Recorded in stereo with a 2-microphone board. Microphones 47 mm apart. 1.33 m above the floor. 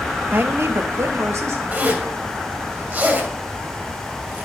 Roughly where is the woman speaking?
Right.